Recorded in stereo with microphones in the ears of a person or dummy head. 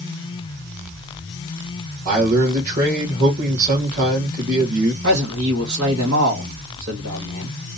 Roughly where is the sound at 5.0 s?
Right.